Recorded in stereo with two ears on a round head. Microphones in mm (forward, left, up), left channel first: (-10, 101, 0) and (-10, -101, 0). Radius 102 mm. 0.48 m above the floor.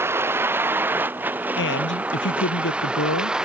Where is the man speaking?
60° left (ahead or behind).